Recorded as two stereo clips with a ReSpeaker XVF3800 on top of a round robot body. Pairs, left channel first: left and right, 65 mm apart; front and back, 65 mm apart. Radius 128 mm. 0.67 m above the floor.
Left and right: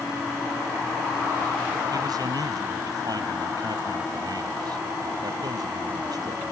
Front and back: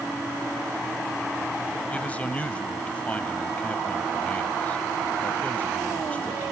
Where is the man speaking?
70° right.